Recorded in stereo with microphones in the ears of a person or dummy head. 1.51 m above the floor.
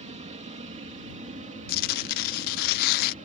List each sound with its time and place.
0.0 s an aircraft: 25° right (ahead or behind); by 3.2 s 30° right (ahead or behind)
1.7 s tearing paper: 45° left (ahead or behind)